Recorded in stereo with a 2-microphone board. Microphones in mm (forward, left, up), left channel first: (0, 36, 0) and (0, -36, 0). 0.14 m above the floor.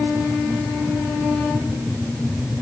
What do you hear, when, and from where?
Only background noise.